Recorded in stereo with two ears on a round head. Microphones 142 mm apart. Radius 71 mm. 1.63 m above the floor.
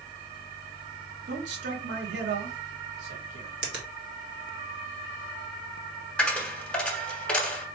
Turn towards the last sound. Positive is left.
turn(degrees=5)  # may be behind; listen again after turning